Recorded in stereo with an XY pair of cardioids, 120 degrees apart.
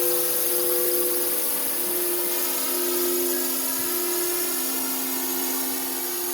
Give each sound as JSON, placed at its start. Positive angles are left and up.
{"t": 0.0, "sound": "a drone", "azimuth_deg": 20}